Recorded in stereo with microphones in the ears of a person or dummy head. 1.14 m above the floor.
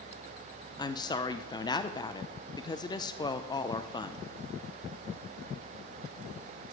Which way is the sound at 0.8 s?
15° left (ahead or behind).